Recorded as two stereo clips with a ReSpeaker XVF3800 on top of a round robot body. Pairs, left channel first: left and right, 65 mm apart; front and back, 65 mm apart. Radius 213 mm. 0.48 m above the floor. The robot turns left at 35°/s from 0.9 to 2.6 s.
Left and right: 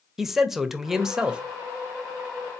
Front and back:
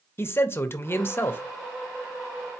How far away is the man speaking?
About 1.0 m.